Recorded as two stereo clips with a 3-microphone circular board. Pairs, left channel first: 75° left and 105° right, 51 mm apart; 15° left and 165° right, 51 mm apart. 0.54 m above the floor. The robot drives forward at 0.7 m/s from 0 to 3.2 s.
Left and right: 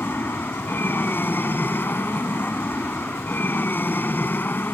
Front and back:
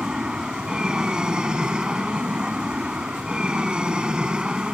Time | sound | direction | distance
0.0 | an aircraft | 120° left | ?